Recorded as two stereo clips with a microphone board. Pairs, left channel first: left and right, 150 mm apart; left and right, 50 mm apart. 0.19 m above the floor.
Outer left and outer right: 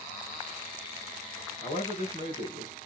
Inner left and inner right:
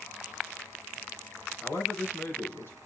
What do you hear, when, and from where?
1.6 s a man speaking: 55° left (ahead or behind), 1.8 m